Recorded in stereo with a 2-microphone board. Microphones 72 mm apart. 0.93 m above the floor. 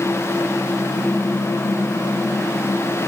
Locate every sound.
Only background noise.